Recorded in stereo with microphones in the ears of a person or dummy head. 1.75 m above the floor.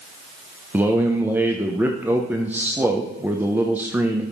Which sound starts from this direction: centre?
A man speaking, at 0.7 s.